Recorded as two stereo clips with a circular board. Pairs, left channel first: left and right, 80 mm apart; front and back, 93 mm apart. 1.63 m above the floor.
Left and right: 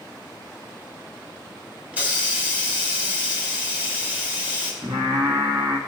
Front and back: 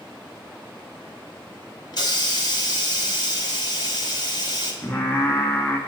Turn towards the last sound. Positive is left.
turn(degrees=-70)